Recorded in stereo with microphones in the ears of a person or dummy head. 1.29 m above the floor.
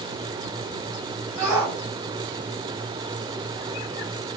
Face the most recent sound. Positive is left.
turn(degrees=-20)  # may be behind; listen again after turning